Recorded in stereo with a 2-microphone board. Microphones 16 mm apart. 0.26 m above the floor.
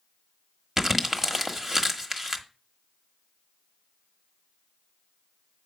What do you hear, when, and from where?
0.8 s crumpling: 25° right (ahead or behind), 1.2 m